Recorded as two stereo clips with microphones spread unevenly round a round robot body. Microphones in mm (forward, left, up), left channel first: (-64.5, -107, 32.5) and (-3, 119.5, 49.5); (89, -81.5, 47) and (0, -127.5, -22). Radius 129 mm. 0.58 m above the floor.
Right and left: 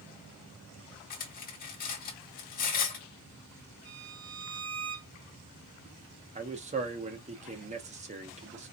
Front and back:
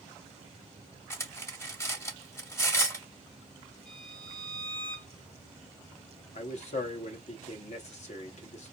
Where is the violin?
100° left, 2.5 m.